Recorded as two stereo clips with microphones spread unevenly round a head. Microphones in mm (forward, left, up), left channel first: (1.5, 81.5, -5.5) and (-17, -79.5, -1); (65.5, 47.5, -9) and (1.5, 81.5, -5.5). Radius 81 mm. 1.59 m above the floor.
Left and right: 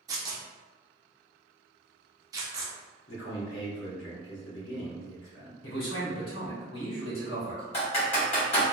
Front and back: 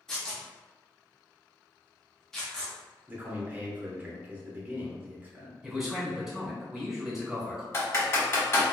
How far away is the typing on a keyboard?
About 1.4 m.